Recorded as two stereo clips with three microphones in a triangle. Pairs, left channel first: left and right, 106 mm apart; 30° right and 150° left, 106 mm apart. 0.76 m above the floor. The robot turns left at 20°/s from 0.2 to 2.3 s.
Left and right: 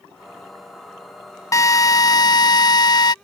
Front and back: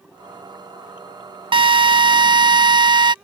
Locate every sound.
1.5 s a drill: 140° left; by 3.1 s 125° left